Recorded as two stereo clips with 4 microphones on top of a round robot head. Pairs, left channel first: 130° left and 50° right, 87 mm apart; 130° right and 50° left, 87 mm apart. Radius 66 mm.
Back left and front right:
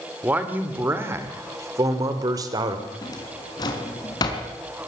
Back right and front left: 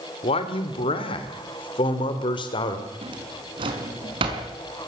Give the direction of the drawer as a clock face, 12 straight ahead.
9 o'clock.